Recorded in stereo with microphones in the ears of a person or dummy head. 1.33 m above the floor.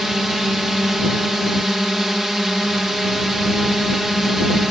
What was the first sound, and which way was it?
A drone, 5° right (ahead or behind).